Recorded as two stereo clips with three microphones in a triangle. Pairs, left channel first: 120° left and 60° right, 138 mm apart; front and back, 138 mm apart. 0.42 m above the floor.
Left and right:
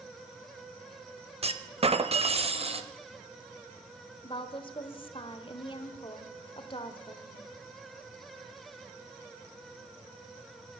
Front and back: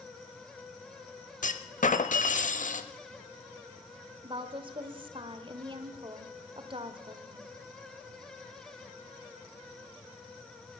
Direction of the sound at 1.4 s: 20° right.